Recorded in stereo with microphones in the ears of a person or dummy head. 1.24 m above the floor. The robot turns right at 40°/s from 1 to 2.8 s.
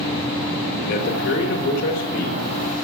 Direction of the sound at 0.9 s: 50° left.